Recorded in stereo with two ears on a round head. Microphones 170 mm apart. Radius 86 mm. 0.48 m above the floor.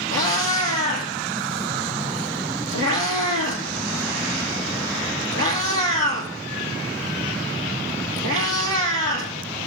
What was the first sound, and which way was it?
A cat meowing, 75° right (ahead or behind).